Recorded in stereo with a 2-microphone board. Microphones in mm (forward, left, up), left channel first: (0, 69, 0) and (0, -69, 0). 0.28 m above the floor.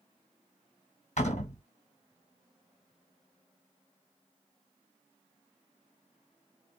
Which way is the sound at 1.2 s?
60° left (ahead or behind).